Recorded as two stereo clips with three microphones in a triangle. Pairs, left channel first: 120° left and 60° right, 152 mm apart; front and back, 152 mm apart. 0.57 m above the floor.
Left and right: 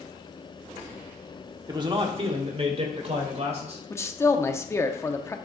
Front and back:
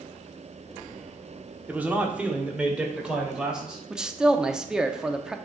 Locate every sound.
1.7 s a man speaking: 110° right, 0.9 m; by 3.8 s 95° right, 2.5 m
3.9 s a man speaking: 105° left, 0.6 m